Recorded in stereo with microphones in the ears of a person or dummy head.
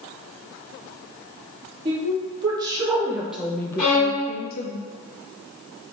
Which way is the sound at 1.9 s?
30° right (ahead or behind).